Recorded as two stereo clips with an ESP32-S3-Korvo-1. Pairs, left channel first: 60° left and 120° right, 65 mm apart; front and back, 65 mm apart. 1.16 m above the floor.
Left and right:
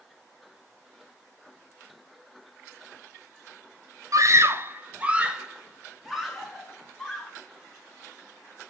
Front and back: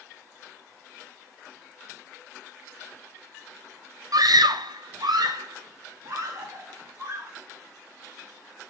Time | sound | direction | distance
4.1 | a scream | 155° right | 0.5 m